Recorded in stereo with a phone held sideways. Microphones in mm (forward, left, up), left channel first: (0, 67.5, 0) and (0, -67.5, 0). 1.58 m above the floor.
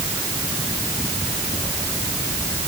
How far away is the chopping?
No chopping in this recording.